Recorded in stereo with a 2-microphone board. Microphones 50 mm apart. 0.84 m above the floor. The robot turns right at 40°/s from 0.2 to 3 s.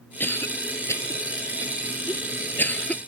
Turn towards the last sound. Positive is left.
turn(degrees=25)  # may be behind; listen again after turning